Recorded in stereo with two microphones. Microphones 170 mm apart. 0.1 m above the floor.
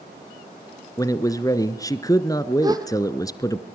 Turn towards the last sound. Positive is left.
turn(degrees=-20)  # may be behind; listen again after turning